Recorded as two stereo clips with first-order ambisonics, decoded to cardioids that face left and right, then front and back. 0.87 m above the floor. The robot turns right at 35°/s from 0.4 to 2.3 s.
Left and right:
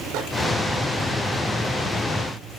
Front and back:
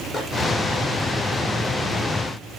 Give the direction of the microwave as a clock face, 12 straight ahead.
3 o'clock.